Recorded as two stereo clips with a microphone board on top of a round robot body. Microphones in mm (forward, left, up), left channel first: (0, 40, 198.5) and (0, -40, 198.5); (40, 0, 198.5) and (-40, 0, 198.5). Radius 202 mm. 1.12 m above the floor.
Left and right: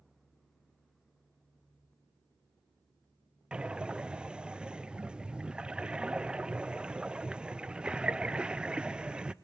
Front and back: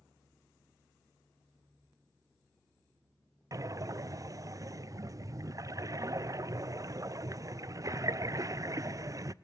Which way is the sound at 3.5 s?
165° right.